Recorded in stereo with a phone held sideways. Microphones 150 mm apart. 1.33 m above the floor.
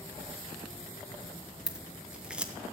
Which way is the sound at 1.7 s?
5° right (ahead or behind).